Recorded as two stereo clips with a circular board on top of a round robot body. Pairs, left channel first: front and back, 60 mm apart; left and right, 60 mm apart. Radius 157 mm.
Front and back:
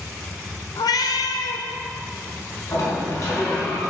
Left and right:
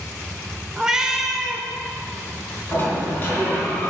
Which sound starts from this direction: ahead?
A cat meowing, at 0.8 s.